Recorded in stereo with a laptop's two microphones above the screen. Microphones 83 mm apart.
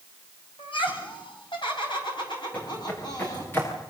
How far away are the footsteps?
About 6 m.